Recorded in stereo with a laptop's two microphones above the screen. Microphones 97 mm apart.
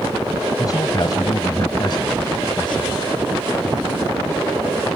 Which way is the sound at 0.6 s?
35° left (ahead or behind).